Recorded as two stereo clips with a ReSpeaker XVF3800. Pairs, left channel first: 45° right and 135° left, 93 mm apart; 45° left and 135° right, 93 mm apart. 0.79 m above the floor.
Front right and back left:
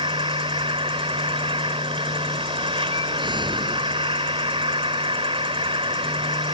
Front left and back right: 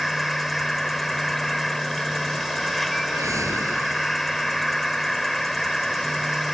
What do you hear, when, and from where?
0.0 s an insect: 135° left
3.1 s a whoosh: 170° left